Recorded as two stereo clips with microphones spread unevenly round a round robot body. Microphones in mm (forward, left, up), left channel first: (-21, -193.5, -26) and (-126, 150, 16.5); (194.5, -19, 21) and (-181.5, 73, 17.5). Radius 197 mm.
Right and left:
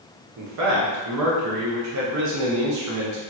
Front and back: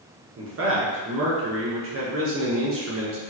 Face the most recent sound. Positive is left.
turn(degrees=130)